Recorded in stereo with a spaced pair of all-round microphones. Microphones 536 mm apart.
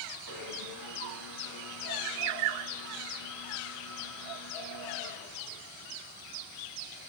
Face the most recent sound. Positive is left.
turn(degrees=40)  # may be behind; listen again after turning